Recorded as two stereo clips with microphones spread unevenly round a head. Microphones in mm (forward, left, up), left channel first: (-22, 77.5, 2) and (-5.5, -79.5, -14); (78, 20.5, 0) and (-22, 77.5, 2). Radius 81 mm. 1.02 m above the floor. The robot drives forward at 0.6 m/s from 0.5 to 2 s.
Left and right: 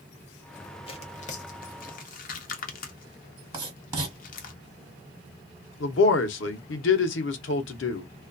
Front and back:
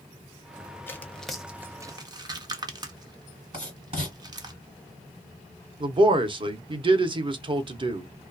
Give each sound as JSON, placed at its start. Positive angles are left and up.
{"t": 0.9, "sound": "tearing paper", "azimuth_deg": 40, "distance_m": 0.8}
{"t": 3.5, "sound": "writing", "azimuth_deg": -155, "distance_m": 1.8}
{"t": 5.8, "sound": "a man speaking", "azimuth_deg": 105, "distance_m": 0.7}